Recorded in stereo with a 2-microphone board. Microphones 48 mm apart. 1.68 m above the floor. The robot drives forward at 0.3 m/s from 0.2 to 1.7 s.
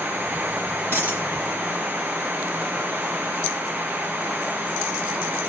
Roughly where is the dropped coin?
Right.